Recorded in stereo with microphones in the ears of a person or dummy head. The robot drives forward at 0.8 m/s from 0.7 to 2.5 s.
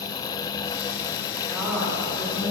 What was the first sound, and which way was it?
A woman speaking, 5° right (ahead or behind).